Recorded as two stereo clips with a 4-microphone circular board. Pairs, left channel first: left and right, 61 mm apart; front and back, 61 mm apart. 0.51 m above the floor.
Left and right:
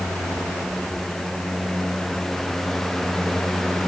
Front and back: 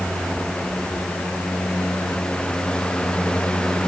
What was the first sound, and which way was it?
Only background noise.